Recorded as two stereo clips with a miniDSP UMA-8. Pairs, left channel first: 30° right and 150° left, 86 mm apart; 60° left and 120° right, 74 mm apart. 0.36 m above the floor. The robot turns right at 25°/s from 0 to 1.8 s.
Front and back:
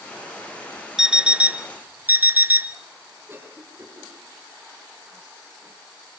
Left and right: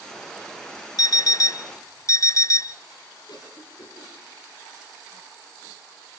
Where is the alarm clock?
70° left, 0.6 m; by 2.8 s 90° left, 0.6 m.